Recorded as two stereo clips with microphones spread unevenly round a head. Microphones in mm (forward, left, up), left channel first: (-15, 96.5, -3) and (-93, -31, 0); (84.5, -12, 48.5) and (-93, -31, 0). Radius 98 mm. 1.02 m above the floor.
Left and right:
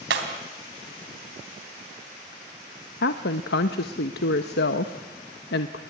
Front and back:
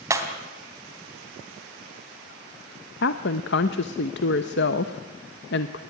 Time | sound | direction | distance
0.1 | breaking glass | 95° right | 3 m
3.0 | a woman speaking | 45° left | 1.0 m